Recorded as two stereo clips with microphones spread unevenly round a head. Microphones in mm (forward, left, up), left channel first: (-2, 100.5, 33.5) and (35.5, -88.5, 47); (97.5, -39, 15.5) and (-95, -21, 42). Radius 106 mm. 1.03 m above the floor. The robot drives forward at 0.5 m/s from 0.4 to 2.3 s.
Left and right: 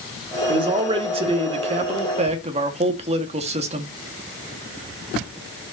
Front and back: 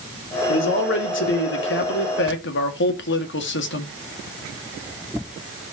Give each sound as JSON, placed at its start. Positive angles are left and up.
{"t": 0.5, "sound": "a man speaking", "azimuth_deg": -15, "distance_m": 3.5}